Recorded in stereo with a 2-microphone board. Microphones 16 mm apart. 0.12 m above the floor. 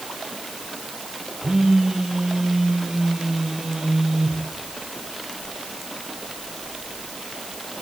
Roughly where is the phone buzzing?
Right.